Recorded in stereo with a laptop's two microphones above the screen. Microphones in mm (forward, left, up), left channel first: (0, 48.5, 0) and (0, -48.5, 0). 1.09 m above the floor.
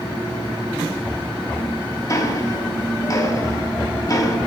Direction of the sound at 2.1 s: 35° left (ahead or behind).